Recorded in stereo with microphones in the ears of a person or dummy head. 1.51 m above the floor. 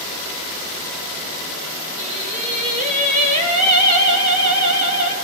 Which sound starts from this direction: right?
Singing, at 2.0 s.